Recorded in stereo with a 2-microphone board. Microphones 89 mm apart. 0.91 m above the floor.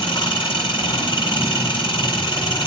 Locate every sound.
0.0 s an engine running: 65° left (ahead or behind), 8 m